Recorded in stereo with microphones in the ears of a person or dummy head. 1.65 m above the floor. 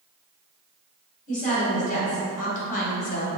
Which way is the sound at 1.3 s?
40° left (ahead or behind).